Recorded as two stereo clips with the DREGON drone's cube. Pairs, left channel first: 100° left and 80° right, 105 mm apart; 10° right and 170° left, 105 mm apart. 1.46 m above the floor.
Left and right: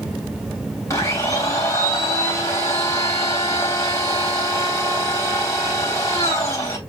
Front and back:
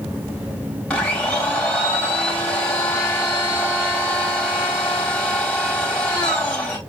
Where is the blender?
60° left, 1.2 m.